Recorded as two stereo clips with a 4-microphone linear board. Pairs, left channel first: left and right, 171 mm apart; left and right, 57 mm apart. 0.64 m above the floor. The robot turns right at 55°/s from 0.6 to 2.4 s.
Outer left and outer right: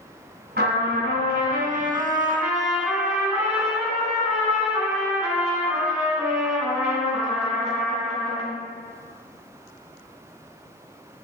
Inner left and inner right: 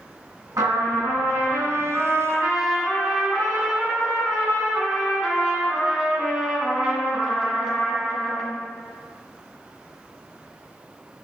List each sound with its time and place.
0.6 s a trumpet: 105° right, 2.5 m; by 8.5 s 5° right, 2.5 m